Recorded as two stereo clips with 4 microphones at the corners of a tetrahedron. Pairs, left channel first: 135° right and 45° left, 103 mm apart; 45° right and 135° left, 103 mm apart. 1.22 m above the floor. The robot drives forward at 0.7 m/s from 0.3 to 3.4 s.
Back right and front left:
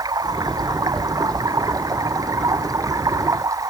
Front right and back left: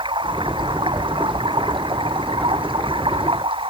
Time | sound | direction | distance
0.0 | running water | 95° left | ?